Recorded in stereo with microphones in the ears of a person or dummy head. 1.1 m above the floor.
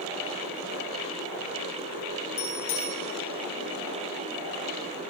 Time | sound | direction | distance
2.4 | a bicycle bell | 80° left | 10 m